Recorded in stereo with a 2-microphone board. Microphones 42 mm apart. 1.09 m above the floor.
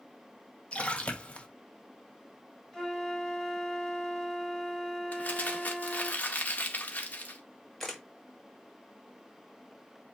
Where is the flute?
10° left (ahead or behind), 3.5 m.